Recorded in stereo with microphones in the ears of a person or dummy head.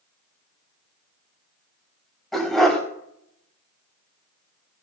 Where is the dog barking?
5° left (ahead or behind), 3.5 m.